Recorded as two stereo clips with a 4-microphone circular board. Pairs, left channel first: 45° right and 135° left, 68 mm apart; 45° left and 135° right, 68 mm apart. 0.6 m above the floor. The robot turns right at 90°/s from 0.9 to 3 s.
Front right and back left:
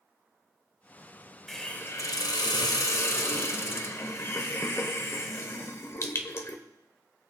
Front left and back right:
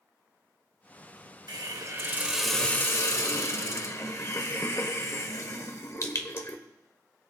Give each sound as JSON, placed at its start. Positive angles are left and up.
{"t": 1.5, "sound": "a hiss", "azimuth_deg": -135, "distance_m": 1.0}